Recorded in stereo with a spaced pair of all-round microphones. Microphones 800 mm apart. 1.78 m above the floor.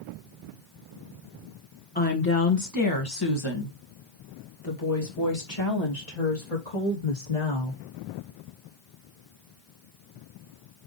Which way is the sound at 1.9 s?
10° left (ahead or behind).